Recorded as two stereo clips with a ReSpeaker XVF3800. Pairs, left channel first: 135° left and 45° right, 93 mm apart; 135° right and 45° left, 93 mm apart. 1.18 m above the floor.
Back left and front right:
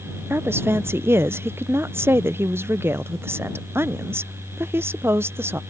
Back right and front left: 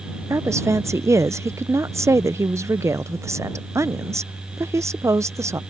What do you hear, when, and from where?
0.3 s a woman speaking: 5° left